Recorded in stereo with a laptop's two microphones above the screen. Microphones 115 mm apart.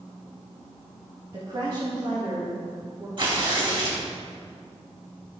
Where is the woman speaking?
45° right (ahead or behind), 1.8 m; by 3.1 s 65° right (ahead or behind), 3 m.